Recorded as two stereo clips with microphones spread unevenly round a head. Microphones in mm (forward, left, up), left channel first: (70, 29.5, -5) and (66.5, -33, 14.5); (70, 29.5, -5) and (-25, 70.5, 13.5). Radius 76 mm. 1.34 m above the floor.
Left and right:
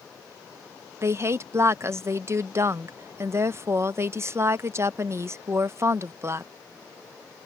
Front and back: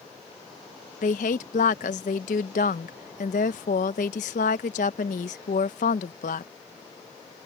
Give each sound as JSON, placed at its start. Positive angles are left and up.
{"t": 1.0, "sound": "a woman speaking", "azimuth_deg": -50}